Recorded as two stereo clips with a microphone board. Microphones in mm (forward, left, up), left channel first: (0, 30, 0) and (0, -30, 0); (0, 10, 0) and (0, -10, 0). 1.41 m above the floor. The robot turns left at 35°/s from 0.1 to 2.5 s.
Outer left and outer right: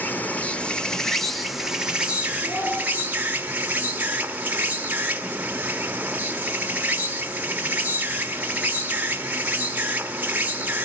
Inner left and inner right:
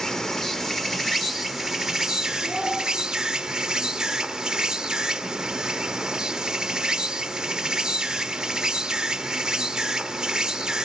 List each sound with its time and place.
0.0 s an insect: 45° left, 1.1 m; by 10.9 s 40° right, 1.1 m
2.4 s a child speaking: 75° left (ahead or behind), 9.5 m